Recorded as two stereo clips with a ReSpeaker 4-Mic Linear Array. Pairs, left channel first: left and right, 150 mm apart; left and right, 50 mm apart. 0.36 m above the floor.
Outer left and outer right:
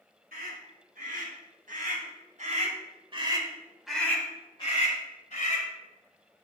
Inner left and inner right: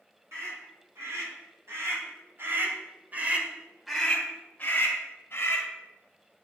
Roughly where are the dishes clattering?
No dishes clattering in this recording.